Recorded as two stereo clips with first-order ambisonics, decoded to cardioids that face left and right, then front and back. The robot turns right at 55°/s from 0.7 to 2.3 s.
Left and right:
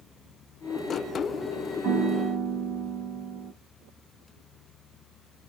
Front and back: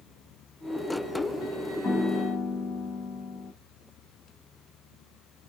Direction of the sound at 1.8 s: 70° right.